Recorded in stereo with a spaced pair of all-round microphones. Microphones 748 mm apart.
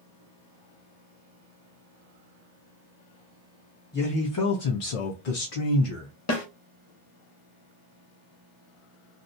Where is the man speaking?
15° left (ahead or behind), 0.6 m; by 6.1 s 45° left (ahead or behind), 1.0 m.